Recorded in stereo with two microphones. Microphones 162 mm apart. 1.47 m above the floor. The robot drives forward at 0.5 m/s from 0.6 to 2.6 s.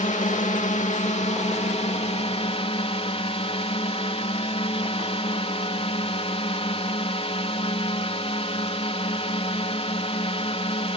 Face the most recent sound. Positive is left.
turn(degrees=40)  # may be behind; listen again after turning